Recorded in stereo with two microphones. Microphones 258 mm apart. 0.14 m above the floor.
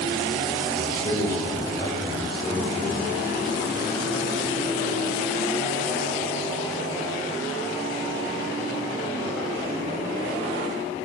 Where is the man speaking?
10° left (ahead or behind), 5 m; by 3.3 s 25° left (ahead or behind), 4.5 m.